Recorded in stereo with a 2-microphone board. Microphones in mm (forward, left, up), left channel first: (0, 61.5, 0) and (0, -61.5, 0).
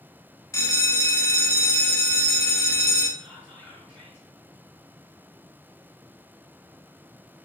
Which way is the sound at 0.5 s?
25° left (ahead or behind).